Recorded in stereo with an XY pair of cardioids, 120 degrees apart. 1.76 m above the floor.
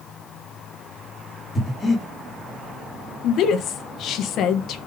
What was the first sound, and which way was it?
Breathing, 20° left.